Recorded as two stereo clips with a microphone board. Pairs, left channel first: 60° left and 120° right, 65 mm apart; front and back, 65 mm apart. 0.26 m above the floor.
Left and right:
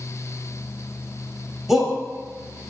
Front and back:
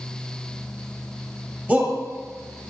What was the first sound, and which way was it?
A shout, 160° left.